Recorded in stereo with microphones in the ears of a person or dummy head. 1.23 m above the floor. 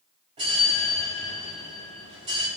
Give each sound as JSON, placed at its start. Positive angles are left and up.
{"t": 0.4, "sound": "a bell", "side_deg": -35, "distance_m": 3.0}